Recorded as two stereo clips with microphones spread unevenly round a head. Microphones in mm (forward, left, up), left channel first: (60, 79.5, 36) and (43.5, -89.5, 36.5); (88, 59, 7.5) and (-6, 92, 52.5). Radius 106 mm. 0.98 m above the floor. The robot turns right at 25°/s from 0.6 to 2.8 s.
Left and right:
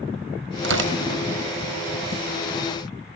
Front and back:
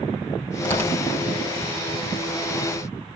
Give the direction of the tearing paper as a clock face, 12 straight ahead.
3 o'clock.